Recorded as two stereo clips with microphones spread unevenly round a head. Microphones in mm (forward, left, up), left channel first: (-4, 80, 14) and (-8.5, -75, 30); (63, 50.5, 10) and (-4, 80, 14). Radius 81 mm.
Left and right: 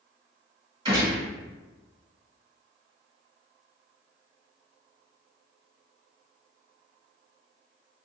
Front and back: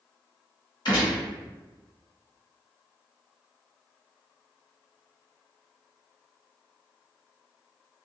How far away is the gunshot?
About 1.6 m.